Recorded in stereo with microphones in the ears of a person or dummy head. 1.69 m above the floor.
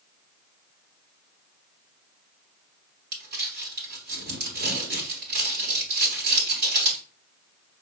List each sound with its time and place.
3.1 s crumpling: 60° right (ahead or behind), 3.5 m